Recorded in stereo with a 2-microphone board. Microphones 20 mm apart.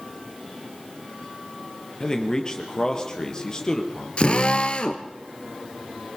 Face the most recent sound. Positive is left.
turn(degrees=55)  # may be behind; listen again after turning